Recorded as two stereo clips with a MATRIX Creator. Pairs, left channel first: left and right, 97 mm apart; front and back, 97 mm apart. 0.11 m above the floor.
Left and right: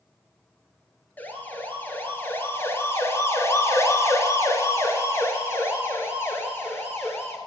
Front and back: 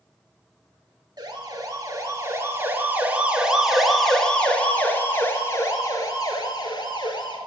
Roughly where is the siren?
Behind left.